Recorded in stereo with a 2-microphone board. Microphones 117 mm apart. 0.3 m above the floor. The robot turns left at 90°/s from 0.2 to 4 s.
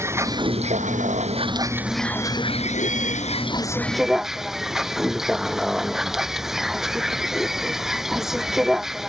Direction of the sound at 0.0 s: 20° right.